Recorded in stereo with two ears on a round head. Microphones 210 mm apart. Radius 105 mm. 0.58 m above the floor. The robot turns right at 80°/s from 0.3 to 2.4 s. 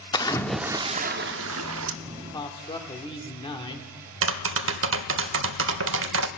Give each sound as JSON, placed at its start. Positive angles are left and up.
{"t": 0.1, "sound": "a splash", "azimuth_deg": 160, "distance_m": 0.5}
{"t": 2.0, "sound": "a man speaking", "side_deg": -5, "distance_m": 1.2}
{"t": 4.2, "sound": "tapping", "side_deg": -55, "distance_m": 0.5}